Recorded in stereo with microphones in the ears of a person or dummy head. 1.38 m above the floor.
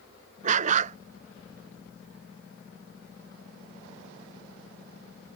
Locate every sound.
0.4 s a dog barking: 50° right (ahead or behind)